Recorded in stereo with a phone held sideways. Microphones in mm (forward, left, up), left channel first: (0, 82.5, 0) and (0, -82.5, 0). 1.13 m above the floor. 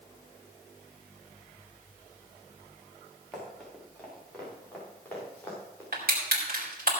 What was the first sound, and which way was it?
Running footsteps, centre (ahead or behind).